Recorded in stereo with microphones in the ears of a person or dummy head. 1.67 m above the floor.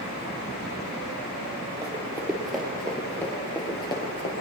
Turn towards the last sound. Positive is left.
turn(degrees=35)  # may be behind; listen again after turning